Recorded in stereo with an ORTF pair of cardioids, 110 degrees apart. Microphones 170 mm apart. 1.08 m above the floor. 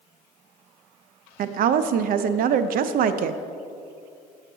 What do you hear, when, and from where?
1.4 s a woman speaking: 55° right, 0.6 m